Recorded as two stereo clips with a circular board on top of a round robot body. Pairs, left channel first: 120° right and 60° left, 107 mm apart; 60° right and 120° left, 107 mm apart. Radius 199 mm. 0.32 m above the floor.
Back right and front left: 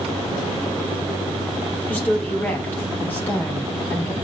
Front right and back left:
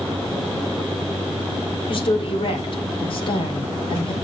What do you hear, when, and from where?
1.9 s a woman speaking: 50° right, 2.5 m